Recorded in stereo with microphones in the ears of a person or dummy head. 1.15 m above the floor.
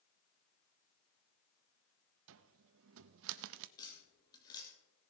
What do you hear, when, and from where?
2.3 s a cupboard door: 65° right (ahead or behind), 0.6 m
3.8 s tapping: 15° left (ahead or behind), 3 m